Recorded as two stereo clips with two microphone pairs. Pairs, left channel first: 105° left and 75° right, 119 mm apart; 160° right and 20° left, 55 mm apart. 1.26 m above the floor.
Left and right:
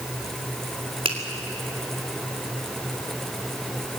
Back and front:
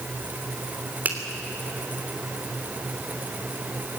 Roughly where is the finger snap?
Ahead right.